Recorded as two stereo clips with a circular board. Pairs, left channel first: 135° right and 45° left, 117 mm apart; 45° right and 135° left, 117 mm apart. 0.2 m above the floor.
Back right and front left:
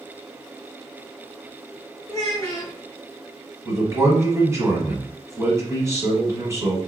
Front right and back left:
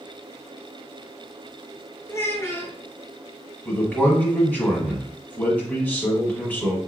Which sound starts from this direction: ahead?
A man speaking, at 3.6 s.